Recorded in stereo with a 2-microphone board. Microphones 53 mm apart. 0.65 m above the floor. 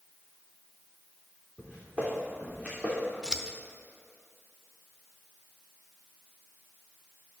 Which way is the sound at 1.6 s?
15° right (ahead or behind).